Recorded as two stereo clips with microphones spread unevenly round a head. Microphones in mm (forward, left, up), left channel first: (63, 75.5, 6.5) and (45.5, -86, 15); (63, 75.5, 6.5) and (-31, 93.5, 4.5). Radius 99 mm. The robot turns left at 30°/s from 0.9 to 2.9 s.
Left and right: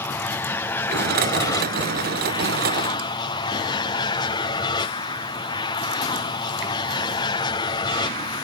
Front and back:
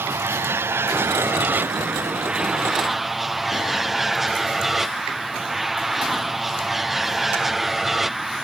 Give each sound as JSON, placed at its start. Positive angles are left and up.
{"t": 0.0, "sound": "an aircraft", "azimuth_deg": 145}